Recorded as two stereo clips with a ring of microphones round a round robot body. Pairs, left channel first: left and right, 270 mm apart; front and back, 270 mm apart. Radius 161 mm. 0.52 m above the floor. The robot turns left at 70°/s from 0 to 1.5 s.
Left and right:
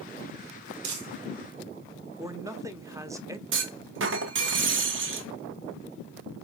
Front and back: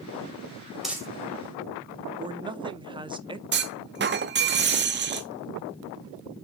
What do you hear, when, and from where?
0.8 s crumpling: 90° right, 2.5 m; by 1.1 s 105° right, 2.5 m
2.2 s a man speaking: 145° right, 0.8 m
3.5 s a clunk: 135° right, 1.1 m